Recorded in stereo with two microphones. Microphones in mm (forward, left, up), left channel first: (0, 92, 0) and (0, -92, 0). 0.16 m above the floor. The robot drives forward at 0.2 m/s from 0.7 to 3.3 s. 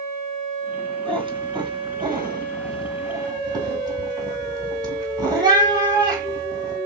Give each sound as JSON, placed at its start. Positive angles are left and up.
{"t": 1.1, "sound": "a cat meowing", "side_deg": -30, "distance_m": 1.3}